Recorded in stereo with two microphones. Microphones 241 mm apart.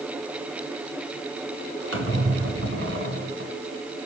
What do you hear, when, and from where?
1.9 s a squeak: 60° right (ahead or behind), 1.8 m